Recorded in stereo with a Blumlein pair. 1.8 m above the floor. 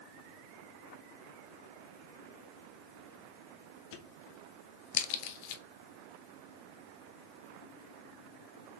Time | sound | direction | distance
3.9 | a crack | 45° left | 0.6 m